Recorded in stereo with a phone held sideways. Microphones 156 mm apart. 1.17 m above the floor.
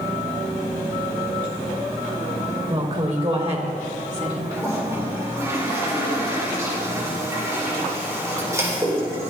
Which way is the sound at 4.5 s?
20° right (ahead or behind).